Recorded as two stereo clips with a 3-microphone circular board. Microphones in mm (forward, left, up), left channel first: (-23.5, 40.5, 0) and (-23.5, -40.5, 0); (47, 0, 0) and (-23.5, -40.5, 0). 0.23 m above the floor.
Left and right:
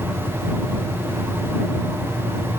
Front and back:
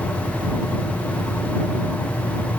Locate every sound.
Only background noise.